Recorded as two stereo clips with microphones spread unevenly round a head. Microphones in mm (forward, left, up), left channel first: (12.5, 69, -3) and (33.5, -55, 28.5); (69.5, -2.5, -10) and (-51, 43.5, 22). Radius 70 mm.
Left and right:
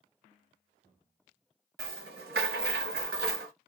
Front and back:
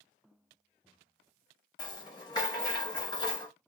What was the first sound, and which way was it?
A rattle, 85° right.